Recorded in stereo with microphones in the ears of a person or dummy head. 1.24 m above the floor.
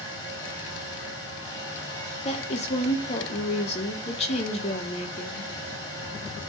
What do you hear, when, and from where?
0.0 s a fan: 30° left (ahead or behind), 3.5 m
2.2 s a woman speaking: 35° left (ahead or behind), 1.2 m